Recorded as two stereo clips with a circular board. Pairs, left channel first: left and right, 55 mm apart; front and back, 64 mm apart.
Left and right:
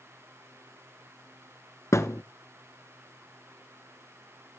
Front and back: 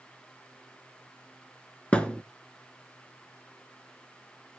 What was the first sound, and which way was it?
A thud, 70° left.